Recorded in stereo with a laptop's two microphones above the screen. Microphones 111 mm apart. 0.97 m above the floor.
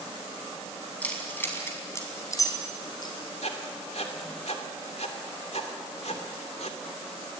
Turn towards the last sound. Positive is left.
turn(degrees=75)  # may be behind; listen again after turning